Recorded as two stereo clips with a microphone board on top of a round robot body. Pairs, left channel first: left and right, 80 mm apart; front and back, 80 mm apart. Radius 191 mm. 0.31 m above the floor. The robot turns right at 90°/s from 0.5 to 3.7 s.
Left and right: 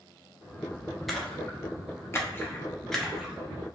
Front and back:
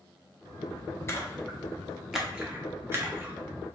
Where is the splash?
Straight ahead, 1.1 m; by 3.4 s 155° right, 1.1 m.